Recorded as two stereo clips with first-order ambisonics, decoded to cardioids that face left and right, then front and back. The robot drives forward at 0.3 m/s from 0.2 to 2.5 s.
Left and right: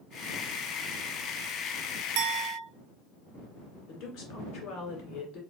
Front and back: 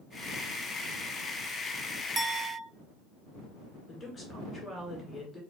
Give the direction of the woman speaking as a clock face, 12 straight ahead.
10 o'clock.